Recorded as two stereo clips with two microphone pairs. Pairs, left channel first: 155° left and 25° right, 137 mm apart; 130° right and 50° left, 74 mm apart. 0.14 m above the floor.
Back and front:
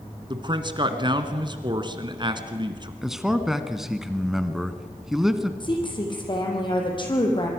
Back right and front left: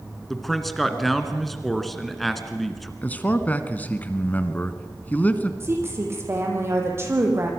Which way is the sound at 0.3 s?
40° right.